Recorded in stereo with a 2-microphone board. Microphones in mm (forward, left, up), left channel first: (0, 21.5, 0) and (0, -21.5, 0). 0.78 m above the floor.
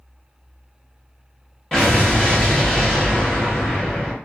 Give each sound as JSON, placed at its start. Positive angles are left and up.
{"t": 1.7, "sound": "an explosion", "side_deg": 15, "distance_m": 0.9}